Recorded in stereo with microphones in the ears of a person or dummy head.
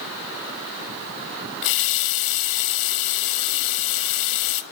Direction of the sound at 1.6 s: 70° left (ahead or behind).